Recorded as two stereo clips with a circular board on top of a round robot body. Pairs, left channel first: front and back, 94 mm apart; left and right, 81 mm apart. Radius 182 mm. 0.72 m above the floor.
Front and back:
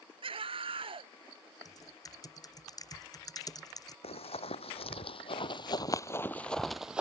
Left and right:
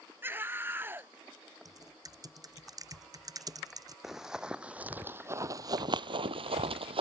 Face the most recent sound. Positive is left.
turn(degrees=-100)